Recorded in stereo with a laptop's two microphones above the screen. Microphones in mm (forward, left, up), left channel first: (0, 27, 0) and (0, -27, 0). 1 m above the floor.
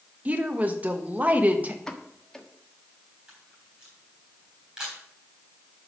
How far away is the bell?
No bell in this recording.